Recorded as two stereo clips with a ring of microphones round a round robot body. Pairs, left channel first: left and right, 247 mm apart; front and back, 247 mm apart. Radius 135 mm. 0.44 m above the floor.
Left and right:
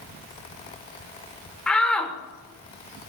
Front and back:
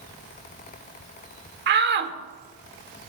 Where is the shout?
175° left, 1.1 m.